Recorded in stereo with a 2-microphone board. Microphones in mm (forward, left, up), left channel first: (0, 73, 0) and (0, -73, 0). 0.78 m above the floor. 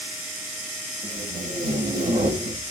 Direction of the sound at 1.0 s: 65° right (ahead or behind).